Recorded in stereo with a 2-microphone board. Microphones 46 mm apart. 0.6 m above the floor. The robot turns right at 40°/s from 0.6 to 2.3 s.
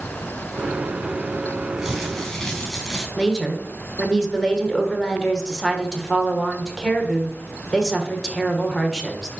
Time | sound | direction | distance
1.8 | crumpling | 10° right (ahead or behind) | 4.5 m
3.2 | a woman speaking | 15° left (ahead or behind) | 1.6 m